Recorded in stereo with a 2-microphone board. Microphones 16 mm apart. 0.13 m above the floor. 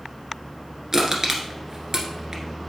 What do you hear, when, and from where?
0.9 s crushing: 40° right (ahead or behind), 1.4 m